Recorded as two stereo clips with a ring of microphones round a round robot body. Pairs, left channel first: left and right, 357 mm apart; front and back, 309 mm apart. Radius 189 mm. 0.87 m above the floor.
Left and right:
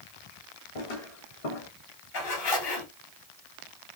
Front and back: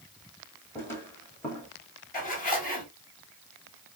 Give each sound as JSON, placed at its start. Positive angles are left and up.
{"t": 0.8, "sound": "footsteps", "azimuth_deg": 85, "distance_m": 2.5}
{"t": 2.1, "sound": "a zipper", "azimuth_deg": 65, "distance_m": 3.0}